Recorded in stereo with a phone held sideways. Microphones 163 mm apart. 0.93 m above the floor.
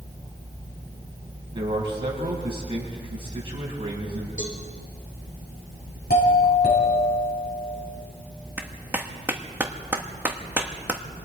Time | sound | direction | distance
1.5 | a man speaking | 30° right (ahead or behind) | 6 m
4.4 | a cowbell | 55° left (ahead or behind) | 4.5 m
6.1 | a doorbell | 75° left (ahead or behind) | 7.5 m
8.6 | a clap | 10° right (ahead or behind) | 1.3 m